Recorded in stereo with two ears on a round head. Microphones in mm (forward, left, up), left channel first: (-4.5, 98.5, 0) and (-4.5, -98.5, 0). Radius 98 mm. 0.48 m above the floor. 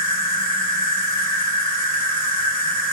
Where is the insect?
35° right (ahead or behind), 1.3 m.